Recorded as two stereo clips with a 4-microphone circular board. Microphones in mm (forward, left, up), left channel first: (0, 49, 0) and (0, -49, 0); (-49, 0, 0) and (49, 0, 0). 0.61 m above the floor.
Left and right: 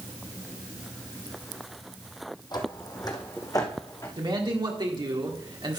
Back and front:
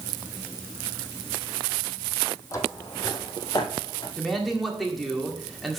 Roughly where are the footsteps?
Behind left.